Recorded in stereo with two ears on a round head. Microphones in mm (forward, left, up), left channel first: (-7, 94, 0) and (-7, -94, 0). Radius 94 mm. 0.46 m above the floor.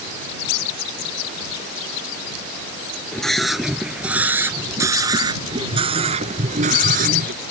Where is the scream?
5° left (ahead or behind); by 7.3 s 45° right (ahead or behind).